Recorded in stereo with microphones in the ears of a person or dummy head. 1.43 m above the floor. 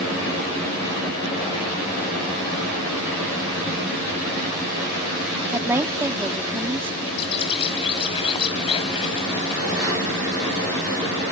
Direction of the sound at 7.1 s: 30° left (ahead or behind).